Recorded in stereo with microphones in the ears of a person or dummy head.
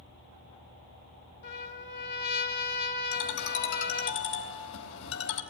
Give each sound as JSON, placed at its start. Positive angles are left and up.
{"t": 1.4, "sound": "a trumpet", "side_deg": 60, "distance_m": 1.4}
{"t": 3.1, "sound": "a ringtone", "side_deg": 75, "distance_m": 3.5}